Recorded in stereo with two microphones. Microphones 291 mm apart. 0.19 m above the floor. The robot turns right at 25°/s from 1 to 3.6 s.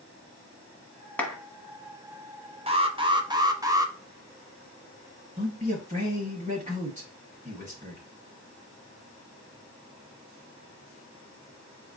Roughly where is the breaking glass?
No breaking glass in this recording.